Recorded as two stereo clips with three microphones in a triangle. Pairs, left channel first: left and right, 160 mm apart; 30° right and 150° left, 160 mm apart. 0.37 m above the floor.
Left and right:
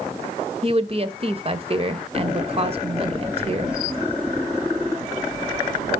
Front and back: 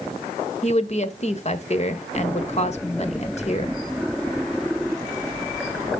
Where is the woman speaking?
55° right, 1.3 m.